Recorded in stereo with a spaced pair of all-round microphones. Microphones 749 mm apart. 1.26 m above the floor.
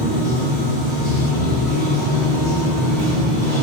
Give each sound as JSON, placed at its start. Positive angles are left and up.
{"t": 0.0, "sound": "running water", "side_deg": 25, "distance_m": 0.9}